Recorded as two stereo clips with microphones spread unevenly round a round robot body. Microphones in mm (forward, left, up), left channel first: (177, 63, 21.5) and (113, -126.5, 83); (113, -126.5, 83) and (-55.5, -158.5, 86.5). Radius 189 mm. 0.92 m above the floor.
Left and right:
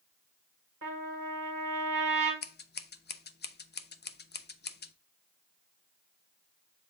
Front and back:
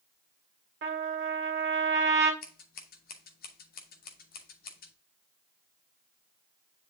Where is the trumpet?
165° right, 2 m.